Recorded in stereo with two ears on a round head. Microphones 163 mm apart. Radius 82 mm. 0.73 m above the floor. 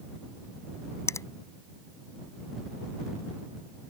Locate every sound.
1.1 s a finger snap: 15° left (ahead or behind)